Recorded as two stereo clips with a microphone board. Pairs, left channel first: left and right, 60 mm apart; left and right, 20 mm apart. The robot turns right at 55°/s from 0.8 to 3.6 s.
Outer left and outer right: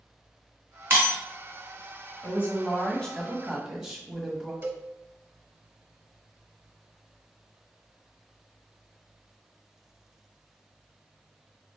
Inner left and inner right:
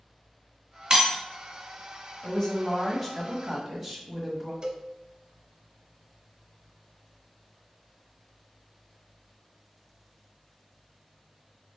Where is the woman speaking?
120° left, 1.4 m; by 4.5 s 165° right, 1.4 m.